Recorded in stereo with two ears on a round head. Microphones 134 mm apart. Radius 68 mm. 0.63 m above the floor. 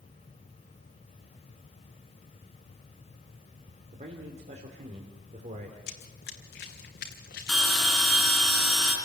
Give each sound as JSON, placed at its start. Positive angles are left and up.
{"t": 3.9, "sound": "a man speaking", "side_deg": -45, "distance_m": 2.5}
{"t": 5.9, "sound": "running footsteps", "side_deg": 70, "distance_m": 1.9}
{"t": 7.5, "sound": "a bell", "side_deg": 5, "distance_m": 4.5}